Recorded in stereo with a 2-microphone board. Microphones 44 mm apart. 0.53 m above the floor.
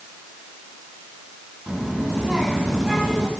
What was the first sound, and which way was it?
A child speaking, 15° right (ahead or behind).